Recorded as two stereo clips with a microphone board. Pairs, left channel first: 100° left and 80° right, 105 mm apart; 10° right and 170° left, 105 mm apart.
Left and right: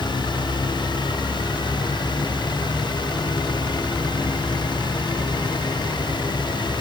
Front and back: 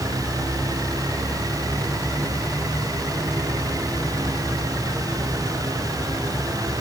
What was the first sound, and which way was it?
Only background noise.